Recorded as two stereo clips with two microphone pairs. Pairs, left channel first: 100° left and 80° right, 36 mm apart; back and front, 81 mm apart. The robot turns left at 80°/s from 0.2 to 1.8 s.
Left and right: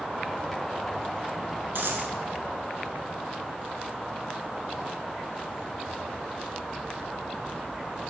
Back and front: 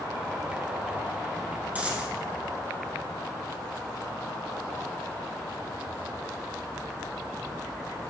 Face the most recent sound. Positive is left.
turn(degrees=-75)